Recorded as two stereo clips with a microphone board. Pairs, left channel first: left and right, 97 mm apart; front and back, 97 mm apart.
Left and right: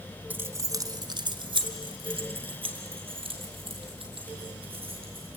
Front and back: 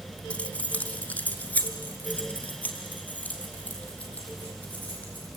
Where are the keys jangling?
55° right, 0.7 m; by 5.3 s 75° right, 5 m.